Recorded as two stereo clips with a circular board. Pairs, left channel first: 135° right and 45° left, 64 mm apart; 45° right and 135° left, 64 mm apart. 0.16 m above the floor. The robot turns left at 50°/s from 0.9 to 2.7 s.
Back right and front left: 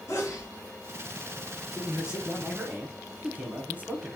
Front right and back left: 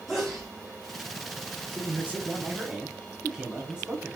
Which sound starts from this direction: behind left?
A man speaking, at 1.7 s.